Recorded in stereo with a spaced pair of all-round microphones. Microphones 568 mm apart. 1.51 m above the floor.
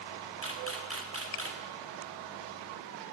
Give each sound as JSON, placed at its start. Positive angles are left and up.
{"t": 0.4, "sound": "a camera shutter", "side_deg": -25, "distance_m": 1.4}